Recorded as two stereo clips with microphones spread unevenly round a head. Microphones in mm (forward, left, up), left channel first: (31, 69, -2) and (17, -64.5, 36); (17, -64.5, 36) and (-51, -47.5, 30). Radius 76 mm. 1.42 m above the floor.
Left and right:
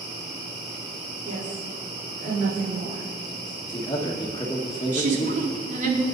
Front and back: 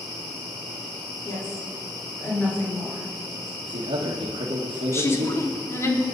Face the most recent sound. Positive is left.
turn(degrees=-60)